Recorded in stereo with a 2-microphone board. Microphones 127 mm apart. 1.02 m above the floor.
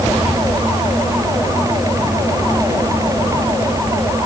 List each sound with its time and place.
Only background noise.